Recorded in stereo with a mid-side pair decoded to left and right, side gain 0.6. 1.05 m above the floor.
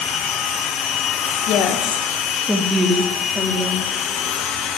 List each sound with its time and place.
1.5 s a woman speaking: 55° left, 1.9 m; by 3.9 s 40° right, 2.5 m